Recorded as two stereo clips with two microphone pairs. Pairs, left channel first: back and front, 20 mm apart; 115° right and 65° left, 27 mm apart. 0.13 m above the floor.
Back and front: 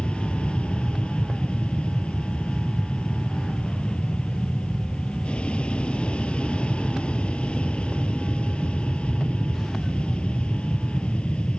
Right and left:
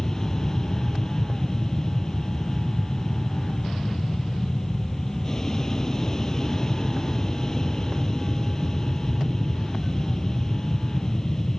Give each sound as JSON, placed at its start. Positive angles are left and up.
{"t": 0.0, "sound": "an aircraft", "azimuth_deg": 180}